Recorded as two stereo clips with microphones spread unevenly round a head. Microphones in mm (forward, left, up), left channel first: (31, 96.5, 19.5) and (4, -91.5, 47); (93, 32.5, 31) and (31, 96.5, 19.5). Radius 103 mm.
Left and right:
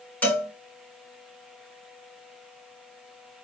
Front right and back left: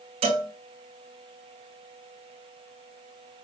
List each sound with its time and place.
0.2 s a cowbell: 165° left, 5.5 m